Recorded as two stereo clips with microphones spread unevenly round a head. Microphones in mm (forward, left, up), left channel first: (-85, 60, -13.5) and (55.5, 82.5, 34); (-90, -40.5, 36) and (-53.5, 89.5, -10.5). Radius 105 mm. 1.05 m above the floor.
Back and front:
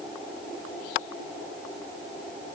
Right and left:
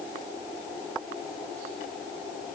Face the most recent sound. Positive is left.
No sound to turn to.